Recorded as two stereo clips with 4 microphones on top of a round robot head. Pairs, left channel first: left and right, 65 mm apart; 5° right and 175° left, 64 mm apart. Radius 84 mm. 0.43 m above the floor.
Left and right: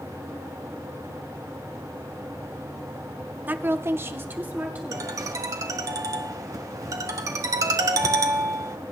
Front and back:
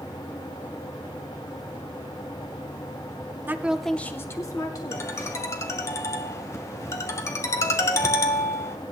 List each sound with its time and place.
3.5 s a woman speaking: 140° right, 1.0 m; by 5.2 s 20° right, 2.5 m
4.9 s a ringtone: 50° right, 1.1 m